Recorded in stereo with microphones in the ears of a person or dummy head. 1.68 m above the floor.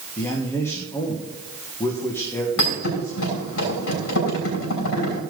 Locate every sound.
0.2 s a man speaking: 15° left (ahead or behind), 1.6 m
2.6 s a thud: 75° left (ahead or behind), 5.5 m